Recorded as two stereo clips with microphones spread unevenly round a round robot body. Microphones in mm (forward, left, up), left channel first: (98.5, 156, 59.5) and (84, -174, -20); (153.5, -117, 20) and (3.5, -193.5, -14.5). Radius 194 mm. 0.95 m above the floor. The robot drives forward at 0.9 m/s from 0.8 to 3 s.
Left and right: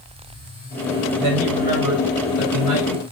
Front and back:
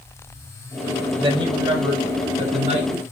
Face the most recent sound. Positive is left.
turn(degrees=-110)